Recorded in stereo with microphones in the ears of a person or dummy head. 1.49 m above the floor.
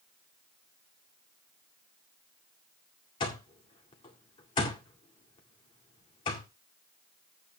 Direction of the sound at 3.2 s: 25° left (ahead or behind).